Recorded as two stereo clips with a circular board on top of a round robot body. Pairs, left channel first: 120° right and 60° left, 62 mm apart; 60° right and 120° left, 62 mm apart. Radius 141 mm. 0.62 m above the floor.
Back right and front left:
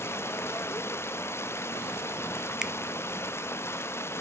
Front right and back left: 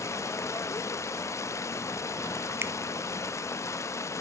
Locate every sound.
0.0 s running water: 80° right, 0.7 m
2.6 s a finger snap: 130° left, 0.6 m